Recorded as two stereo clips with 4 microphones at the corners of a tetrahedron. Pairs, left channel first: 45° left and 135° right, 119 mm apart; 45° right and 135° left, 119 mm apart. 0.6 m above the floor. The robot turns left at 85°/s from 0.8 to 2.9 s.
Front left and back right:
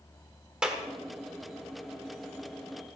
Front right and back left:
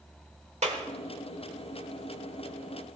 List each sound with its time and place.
0.6 s a clap: 140° left, 1.3 m